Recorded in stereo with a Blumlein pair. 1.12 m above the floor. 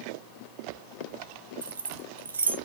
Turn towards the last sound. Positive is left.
turn(degrees=-70)